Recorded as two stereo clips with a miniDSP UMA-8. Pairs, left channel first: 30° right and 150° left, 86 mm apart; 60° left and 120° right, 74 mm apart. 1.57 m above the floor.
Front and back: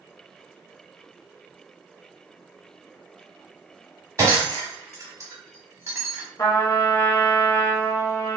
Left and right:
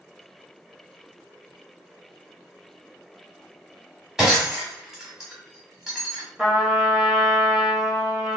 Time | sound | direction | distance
4.2 | breaking glass | 165° left | 1.6 m
6.4 | a trumpet | 35° right | 1.1 m